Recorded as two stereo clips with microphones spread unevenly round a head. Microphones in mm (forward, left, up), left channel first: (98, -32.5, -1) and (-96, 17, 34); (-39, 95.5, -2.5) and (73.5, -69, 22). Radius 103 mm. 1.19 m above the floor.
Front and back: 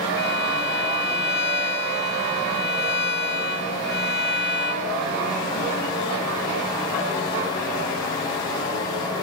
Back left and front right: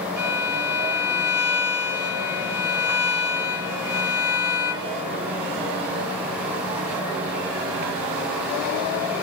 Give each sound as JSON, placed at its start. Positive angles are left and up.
{"t": 0.2, "sound": "a violin", "azimuth_deg": 20, "distance_m": 3.5}